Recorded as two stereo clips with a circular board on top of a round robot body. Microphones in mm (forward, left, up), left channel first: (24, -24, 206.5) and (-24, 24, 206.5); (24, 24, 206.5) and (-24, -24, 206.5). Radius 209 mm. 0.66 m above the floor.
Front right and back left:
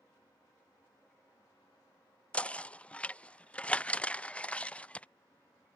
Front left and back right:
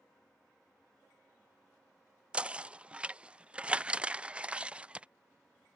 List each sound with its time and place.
2.3 s knocking: 85° right